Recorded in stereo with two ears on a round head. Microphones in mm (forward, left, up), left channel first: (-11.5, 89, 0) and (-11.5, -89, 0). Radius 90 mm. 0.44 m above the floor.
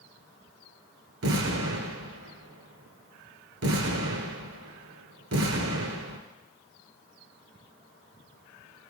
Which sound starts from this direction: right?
An explosion, at 1.2 s.